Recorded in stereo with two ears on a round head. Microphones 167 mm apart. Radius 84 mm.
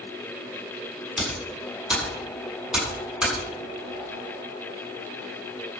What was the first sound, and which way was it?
Typing on a keyboard, 5° right (ahead or behind).